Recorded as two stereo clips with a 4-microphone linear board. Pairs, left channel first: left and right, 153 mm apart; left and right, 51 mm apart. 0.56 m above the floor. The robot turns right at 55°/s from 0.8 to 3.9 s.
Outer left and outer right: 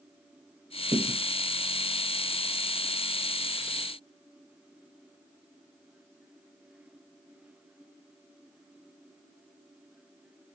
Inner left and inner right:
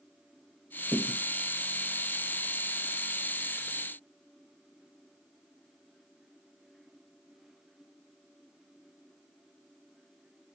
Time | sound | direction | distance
0.9 | a thud | 75° right (ahead or behind) | 0.8 m